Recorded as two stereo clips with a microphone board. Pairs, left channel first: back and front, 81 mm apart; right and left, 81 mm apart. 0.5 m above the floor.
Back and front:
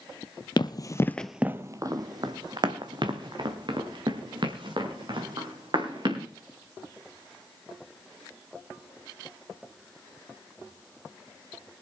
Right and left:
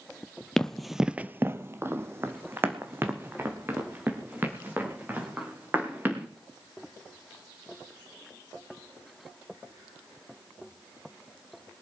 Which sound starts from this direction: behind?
Running footsteps, at 0.6 s.